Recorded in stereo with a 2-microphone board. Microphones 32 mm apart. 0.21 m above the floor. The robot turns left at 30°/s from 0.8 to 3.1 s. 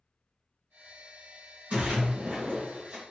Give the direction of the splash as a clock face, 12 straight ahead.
3 o'clock.